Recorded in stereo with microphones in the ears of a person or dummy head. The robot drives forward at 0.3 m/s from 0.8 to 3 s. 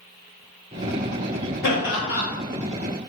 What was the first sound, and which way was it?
Laughter, 65° left (ahead or behind).